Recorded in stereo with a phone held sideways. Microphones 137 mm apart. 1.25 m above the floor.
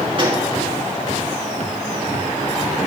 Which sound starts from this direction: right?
A gunshot, at 0.2 s.